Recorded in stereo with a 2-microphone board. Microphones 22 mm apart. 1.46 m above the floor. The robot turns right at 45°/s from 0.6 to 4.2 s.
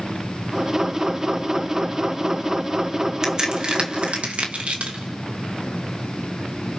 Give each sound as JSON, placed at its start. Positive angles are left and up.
{"t": 3.2, "sound": "a crack", "side_deg": -30, "distance_m": 2.0}